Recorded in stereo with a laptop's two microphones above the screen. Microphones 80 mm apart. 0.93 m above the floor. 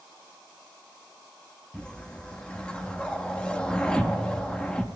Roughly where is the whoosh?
Centre.